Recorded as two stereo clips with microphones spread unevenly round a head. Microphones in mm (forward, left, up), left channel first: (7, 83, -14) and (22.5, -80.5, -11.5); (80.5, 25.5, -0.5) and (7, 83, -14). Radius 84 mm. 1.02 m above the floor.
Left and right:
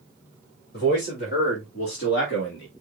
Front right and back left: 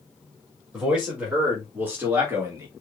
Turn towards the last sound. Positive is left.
turn(degrees=85)